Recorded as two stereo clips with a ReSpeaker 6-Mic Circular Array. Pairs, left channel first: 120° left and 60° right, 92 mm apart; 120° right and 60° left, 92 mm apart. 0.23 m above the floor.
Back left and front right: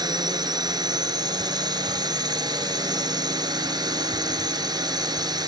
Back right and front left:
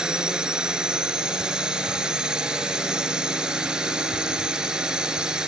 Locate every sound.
0.0 s a drone: 20° right